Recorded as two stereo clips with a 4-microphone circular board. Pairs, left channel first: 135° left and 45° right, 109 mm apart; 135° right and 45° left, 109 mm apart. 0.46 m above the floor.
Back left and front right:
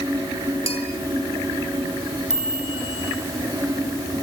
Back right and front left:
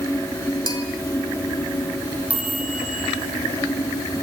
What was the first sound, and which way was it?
A bell, 170° left.